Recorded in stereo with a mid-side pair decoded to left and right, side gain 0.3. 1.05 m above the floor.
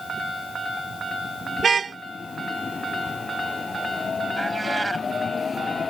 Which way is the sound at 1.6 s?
55° right.